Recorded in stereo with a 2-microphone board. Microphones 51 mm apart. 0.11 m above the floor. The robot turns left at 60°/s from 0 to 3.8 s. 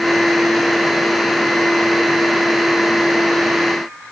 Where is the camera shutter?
I don't hear a camera shutter.